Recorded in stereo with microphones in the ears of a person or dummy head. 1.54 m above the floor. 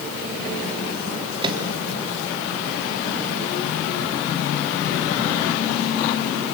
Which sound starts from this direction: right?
A microwave, at 1.4 s.